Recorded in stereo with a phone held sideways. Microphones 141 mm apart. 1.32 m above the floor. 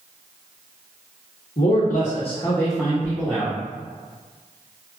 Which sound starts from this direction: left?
A man speaking, at 1.6 s.